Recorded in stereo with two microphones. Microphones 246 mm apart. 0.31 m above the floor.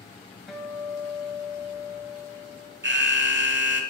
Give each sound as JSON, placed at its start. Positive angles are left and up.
{"t": 0.5, "sound": "a guitar", "side_deg": 0, "distance_m": 1.4}
{"t": 2.8, "sound": "an alarm", "side_deg": -45, "distance_m": 0.9}